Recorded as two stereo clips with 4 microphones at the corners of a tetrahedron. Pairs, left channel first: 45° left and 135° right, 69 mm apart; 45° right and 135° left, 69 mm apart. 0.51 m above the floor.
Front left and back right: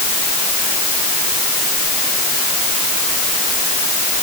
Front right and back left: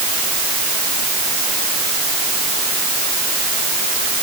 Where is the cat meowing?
No cat meowing in this recording.